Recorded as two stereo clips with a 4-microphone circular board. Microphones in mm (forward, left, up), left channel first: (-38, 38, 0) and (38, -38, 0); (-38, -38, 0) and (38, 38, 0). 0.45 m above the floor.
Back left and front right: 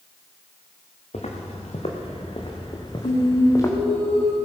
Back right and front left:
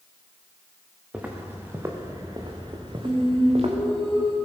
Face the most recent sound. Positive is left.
turn(degrees=130)